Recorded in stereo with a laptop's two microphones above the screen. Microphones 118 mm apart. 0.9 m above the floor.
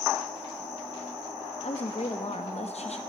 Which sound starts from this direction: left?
A woman speaking, at 1.6 s.